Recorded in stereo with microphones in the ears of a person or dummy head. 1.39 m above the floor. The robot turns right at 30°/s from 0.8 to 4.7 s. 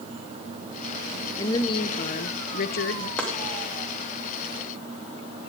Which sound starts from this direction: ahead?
A woman speaking, at 1.4 s.